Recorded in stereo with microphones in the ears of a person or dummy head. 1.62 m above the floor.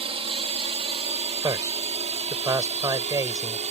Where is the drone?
30° right (ahead or behind); by 3.7 s 35° right (ahead or behind).